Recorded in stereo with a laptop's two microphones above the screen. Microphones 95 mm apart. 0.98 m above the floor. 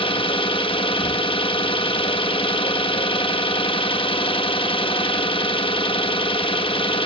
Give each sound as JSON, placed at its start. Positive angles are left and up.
{"t": 0.0, "sound": "an engine running", "side_deg": 65, "distance_m": 0.8}